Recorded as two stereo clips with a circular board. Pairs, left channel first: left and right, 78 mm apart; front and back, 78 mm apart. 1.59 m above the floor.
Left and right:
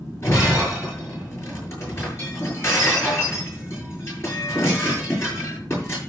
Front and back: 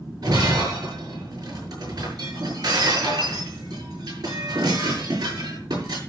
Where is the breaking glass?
145° left, 7.5 m.